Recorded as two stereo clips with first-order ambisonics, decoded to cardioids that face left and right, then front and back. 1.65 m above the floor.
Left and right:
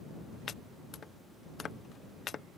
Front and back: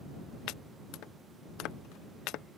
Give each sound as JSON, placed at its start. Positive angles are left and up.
{"t": 0.5, "sound": "chopping", "azimuth_deg": 30}